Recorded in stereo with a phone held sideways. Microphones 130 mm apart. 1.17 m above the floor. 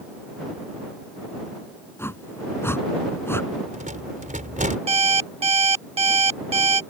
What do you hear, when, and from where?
2.0 s a whoosh: 20° left (ahead or behind)
3.5 s a rattle: 80° right
4.9 s an alarm clock: 50° right (ahead or behind)